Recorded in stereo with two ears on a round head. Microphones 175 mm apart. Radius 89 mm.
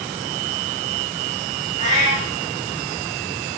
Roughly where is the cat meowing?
Right.